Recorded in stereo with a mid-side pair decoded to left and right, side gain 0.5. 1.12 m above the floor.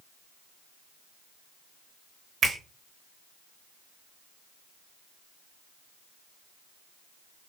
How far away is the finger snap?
About 1.0 m.